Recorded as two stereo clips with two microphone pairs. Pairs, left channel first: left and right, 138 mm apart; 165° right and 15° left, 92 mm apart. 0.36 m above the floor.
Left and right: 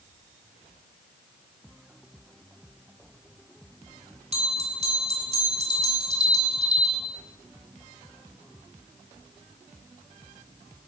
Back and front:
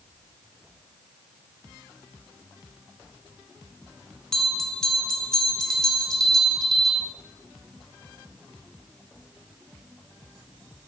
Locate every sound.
4.3 s a bell: 85° right, 1.2 m